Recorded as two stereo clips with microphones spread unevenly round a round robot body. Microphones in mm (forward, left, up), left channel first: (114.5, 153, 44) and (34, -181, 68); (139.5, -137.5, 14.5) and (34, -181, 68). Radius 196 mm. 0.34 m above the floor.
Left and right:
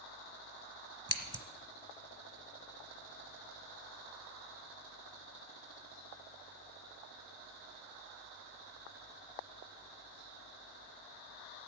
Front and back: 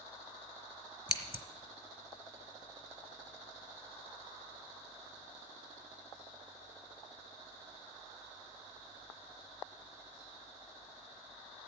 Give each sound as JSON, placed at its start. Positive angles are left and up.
{"t": 1.1, "sound": "scissors", "azimuth_deg": -25, "distance_m": 1.3}